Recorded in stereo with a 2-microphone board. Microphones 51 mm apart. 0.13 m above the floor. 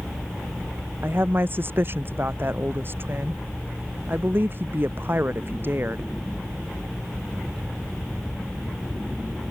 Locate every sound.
1.0 s a woman speaking: 45° right (ahead or behind)